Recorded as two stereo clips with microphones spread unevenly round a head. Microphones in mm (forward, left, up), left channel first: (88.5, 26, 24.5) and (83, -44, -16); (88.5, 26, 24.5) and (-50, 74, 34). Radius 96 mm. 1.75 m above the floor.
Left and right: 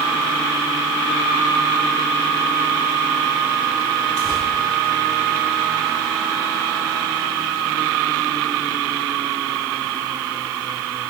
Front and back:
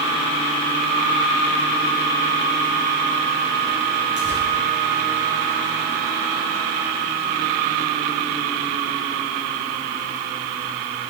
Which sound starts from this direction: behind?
Tearing paper, at 4.2 s.